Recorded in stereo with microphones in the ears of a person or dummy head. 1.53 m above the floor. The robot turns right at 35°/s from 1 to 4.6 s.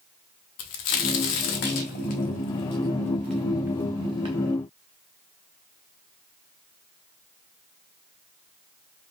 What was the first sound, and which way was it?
A crack, 60° left (ahead or behind).